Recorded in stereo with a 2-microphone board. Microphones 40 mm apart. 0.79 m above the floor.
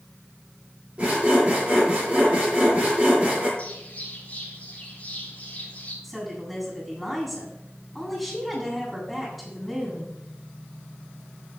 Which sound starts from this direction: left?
A bird, at 3.6 s.